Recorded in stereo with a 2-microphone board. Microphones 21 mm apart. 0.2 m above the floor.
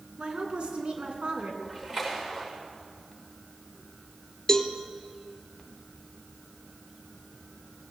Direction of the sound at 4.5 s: 25° left (ahead or behind).